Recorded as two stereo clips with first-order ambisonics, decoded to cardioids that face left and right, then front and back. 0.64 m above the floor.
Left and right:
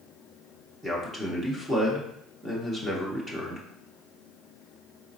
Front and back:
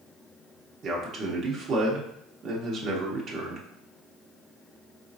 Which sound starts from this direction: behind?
A man speaking, at 0.8 s.